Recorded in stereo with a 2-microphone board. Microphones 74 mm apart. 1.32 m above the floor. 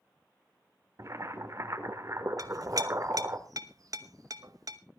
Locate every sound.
1.0 s boiling: 45° right (ahead or behind), 1.6 m
2.4 s a clink: 55° right (ahead or behind), 1.0 m